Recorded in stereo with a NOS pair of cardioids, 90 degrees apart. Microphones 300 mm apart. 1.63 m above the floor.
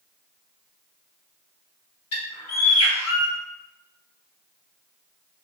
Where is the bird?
60° left, 1.3 m.